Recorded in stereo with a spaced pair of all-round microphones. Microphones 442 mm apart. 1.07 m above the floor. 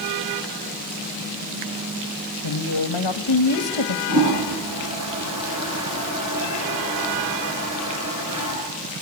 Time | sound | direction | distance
2.4 | a woman speaking | 70° left (ahead or behind) | 1.3 m
4.1 | a toilet flushing | 35° right (ahead or behind) | 6 m